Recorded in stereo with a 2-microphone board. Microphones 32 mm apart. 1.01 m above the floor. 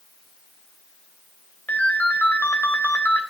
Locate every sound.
1.7 s a ringtone: 75° left (ahead or behind), 2.5 m